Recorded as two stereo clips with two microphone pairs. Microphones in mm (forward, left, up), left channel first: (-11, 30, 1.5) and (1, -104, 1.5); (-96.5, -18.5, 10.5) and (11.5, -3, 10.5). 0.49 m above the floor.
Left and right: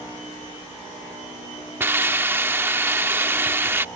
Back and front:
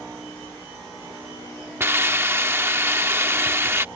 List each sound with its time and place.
1.8 s a hiss: 40° right